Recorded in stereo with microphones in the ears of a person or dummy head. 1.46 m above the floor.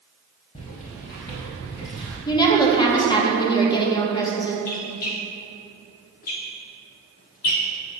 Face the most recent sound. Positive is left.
turn(degrees=45)  # may be behind; listen again after turning